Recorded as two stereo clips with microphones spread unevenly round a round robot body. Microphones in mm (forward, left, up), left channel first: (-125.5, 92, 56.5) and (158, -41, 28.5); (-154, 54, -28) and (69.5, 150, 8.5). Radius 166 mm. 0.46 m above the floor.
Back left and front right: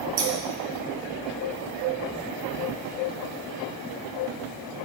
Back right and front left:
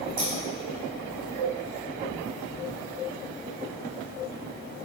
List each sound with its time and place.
0.2 s scissors: 25° right, 1.8 m